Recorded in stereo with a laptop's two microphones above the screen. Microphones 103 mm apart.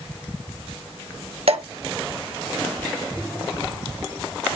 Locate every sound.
1.5 s dripping: 70° right (ahead or behind), 3 m